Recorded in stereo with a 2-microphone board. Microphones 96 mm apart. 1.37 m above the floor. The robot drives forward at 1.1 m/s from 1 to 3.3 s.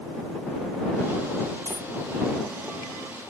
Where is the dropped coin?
35° left (ahead or behind); by 1.9 s 40° left (ahead or behind).